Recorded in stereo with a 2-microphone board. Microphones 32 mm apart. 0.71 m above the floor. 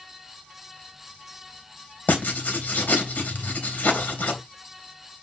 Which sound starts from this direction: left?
Writing, at 2.1 s.